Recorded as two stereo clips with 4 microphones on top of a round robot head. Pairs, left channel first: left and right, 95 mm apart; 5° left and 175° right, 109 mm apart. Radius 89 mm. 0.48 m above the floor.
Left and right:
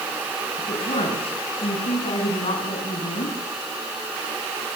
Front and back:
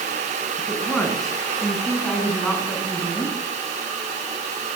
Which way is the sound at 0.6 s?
90° left.